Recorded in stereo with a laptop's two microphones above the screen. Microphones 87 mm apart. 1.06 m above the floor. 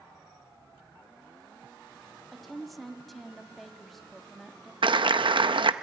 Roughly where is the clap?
Right.